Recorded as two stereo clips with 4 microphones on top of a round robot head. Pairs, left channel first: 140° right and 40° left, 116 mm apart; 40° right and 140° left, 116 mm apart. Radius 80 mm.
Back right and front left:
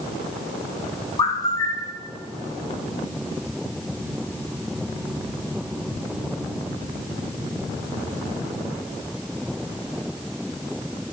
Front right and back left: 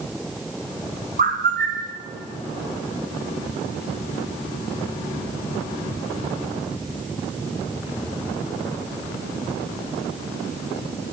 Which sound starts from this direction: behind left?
A bird, at 1.2 s.